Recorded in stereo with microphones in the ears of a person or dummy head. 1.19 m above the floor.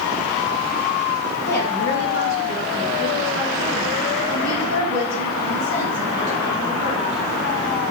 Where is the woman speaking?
50° left (ahead or behind), 2 m; by 7.2 s 85° left, 5 m.